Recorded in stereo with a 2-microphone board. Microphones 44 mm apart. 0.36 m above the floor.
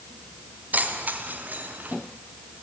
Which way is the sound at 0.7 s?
40° right (ahead or behind).